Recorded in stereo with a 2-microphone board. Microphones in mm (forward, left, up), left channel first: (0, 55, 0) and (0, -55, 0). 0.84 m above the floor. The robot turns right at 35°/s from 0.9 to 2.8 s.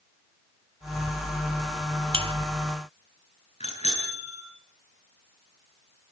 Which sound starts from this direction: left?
A bicycle bell, at 3.6 s.